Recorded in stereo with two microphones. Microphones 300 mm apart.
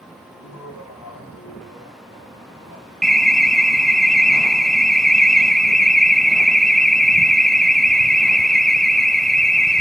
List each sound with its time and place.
0.3 s laughter: 70° left (ahead or behind), 10 m; by 2.9 s 80° left, 9.5 m
3.0 s an alarm: centre (ahead or behind), 0.8 m